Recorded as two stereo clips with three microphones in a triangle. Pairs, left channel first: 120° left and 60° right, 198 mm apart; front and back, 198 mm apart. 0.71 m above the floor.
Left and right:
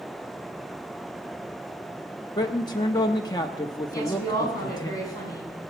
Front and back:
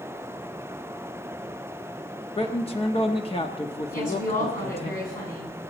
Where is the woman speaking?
45° left, 7 m.